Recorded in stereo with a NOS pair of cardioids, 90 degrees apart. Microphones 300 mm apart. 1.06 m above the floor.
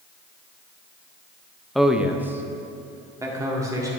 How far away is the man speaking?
About 0.6 m.